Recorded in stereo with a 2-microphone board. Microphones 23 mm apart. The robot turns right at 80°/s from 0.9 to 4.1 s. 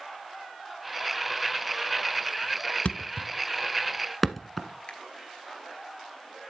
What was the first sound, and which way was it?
A thud, 65° left (ahead or behind).